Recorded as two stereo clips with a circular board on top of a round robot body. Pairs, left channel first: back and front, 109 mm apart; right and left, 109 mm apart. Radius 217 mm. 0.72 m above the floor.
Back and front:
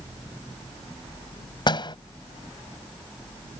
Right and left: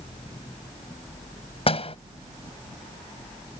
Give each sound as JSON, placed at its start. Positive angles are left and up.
{"t": 1.7, "sound": "a door slam", "azimuth_deg": -130}